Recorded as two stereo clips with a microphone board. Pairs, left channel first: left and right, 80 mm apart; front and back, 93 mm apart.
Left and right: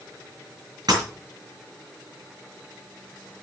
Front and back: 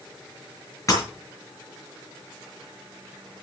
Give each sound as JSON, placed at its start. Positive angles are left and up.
{"t": 0.9, "sound": "breaking glass", "azimuth_deg": -55, "distance_m": 5.5}